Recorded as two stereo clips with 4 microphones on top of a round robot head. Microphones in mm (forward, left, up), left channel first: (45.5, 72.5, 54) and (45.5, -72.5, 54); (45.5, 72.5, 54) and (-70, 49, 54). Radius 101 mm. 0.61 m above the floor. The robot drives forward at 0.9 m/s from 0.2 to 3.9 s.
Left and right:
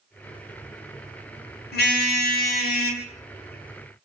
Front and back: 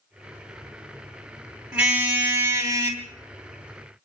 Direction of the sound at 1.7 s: 110° left.